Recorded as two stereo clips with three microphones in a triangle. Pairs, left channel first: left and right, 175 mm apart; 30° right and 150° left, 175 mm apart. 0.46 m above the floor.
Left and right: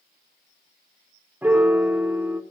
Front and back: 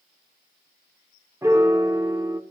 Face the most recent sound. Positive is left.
turn(degrees=-155)